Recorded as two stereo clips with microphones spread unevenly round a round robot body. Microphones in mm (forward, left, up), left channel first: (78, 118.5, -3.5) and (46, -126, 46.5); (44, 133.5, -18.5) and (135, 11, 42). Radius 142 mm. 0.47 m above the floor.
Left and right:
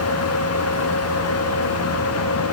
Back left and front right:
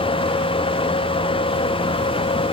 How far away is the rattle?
No rattle in this recording.